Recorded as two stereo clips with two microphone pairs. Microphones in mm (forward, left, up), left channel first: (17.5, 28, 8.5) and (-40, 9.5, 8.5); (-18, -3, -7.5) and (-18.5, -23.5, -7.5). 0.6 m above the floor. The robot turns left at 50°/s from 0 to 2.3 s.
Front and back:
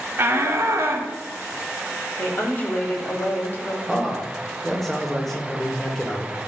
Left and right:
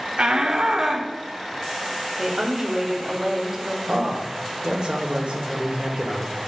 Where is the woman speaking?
20° right, 1.5 m; by 3.8 s 25° right, 1.5 m.